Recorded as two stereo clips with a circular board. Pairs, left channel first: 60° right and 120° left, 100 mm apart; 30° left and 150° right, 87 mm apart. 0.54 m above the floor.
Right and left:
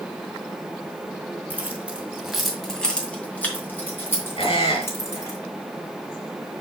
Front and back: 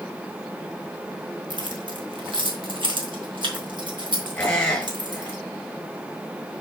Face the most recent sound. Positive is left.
turn(degrees=-45)